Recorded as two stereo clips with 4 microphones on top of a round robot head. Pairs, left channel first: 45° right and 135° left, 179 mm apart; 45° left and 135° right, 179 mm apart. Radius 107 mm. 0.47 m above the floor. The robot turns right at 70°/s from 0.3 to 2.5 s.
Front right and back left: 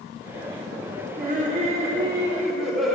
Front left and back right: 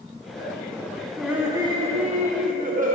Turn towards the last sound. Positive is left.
turn(degrees=-135)